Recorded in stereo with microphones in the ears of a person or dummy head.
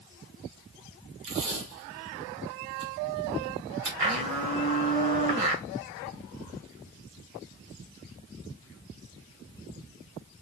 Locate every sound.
1.2 s tape being pulled: 55° right (ahead or behind), 2 m
4.0 s a blender: 35° right (ahead or behind), 1.6 m